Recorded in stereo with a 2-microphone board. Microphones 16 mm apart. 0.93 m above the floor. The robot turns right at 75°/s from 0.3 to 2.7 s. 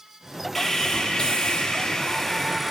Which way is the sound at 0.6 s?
30° left.